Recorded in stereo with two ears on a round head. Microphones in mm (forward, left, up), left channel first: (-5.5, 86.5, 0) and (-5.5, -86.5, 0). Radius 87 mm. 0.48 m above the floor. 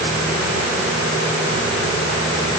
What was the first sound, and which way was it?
Only background noise.